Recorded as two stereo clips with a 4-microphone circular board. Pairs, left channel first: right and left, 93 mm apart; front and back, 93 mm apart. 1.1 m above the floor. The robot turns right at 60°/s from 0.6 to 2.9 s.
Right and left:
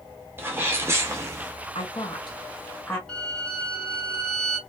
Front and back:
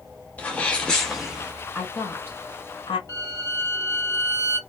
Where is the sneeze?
55° left, 0.6 m; by 1.5 s 110° left, 0.6 m.